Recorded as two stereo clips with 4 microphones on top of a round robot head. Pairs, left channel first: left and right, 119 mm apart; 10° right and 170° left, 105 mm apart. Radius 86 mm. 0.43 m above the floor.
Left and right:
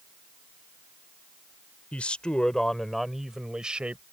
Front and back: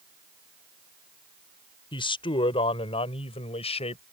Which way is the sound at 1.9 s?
10° left.